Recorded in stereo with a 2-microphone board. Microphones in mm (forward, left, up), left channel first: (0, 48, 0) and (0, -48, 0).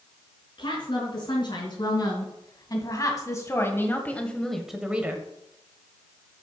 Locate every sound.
0.6 s a woman speaking: 60° left (ahead or behind), 4 m; by 5.2 s 25° right (ahead or behind), 1.4 m